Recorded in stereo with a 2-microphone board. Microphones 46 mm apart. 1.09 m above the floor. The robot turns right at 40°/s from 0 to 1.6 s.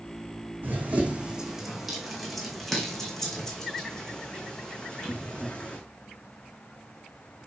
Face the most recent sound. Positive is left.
turn(degrees=30)  # may be behind; listen again after turning